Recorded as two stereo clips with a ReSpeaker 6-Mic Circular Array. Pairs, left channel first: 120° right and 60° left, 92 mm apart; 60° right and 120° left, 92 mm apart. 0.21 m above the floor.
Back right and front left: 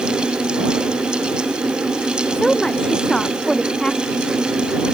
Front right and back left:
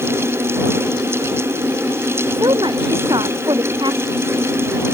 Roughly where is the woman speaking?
Behind left.